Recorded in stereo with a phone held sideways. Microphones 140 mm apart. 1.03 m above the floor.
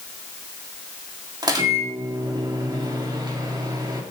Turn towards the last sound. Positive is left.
turn(degrees=-30)  # may be behind; listen again after turning